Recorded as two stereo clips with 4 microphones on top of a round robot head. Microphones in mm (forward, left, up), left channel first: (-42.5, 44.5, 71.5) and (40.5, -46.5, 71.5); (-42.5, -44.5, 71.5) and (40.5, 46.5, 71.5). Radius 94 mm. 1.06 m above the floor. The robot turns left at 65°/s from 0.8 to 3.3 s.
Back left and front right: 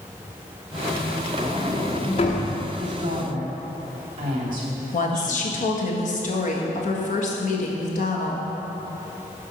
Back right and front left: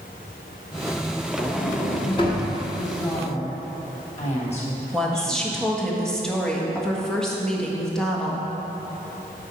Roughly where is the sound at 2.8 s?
Ahead right.